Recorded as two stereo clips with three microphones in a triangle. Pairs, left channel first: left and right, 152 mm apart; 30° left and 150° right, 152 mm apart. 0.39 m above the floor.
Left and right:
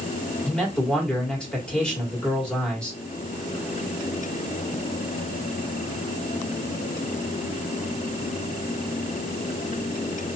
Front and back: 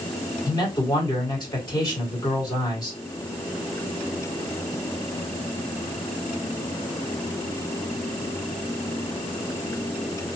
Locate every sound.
0.5 s a man speaking: 15° left, 1.6 m